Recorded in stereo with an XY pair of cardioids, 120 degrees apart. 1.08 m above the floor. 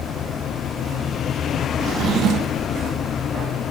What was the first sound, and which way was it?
A drawer, 60° right.